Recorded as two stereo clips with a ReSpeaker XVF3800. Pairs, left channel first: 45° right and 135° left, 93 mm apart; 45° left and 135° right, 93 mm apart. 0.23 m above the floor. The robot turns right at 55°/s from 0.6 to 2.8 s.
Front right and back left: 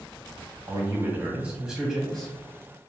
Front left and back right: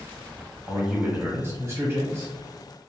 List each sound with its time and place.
0.7 s a man speaking: 155° left, 1.1 m; by 2.3 s 110° right, 1.1 m